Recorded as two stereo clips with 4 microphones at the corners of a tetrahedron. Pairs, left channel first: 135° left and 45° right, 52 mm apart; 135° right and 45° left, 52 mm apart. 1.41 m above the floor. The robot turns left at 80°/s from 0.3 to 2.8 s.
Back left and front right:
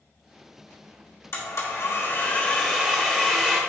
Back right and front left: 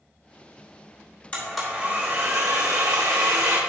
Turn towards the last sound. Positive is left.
turn(degrees=35)